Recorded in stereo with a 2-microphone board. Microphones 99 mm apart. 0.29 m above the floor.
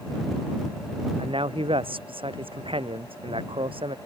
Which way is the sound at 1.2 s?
65° right (ahead or behind).